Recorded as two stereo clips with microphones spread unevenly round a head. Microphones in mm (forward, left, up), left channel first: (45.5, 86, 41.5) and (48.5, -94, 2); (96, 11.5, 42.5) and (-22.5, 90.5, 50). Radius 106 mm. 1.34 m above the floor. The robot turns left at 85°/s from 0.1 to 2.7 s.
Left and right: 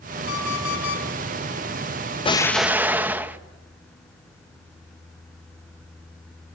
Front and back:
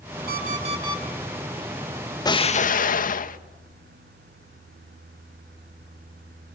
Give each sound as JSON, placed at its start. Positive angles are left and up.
{"t": 0.3, "sound": "an alarm clock", "azimuth_deg": 135, "distance_m": 6.5}
{"t": 2.2, "sound": "an explosion", "azimuth_deg": 30, "distance_m": 1.3}